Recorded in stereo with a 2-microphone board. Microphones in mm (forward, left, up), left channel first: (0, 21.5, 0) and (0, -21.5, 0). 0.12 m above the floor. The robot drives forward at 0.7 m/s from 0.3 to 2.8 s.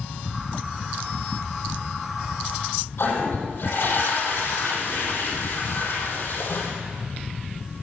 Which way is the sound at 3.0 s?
60° left (ahead or behind).